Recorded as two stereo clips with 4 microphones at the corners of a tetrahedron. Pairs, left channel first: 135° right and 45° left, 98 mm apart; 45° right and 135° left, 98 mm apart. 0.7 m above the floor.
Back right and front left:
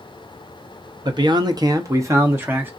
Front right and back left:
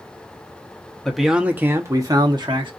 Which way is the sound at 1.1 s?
35° left.